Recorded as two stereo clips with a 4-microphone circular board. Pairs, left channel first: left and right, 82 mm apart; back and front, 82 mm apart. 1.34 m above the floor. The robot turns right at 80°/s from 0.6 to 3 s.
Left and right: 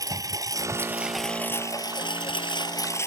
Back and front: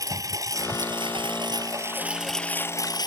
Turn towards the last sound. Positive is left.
turn(degrees=145)